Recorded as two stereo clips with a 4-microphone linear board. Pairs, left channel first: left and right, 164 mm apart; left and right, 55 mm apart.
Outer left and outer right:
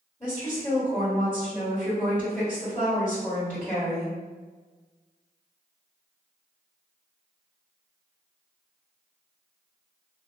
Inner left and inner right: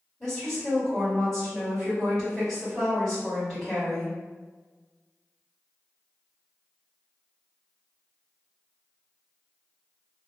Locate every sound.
0.2 s a woman speaking: 15° left (ahead or behind), 1.6 m